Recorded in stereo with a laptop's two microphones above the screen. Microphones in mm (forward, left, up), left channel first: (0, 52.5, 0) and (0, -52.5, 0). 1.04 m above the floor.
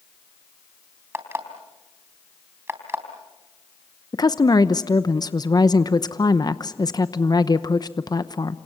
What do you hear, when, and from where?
1.1 s an alarm clock: 25° right (ahead or behind), 3.5 m
4.1 s a woman speaking: 40° left (ahead or behind), 0.8 m